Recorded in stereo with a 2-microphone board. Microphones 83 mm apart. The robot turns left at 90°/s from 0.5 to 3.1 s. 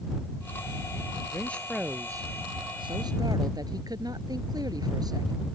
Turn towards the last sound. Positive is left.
turn(degrees=-130)